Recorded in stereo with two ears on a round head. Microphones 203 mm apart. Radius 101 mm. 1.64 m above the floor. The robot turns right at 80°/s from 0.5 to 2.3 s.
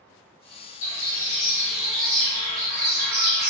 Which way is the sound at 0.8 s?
110° left.